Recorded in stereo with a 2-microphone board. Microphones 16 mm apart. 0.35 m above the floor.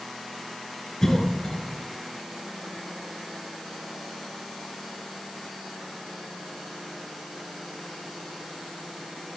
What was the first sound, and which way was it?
A cough, 30° left (ahead or behind).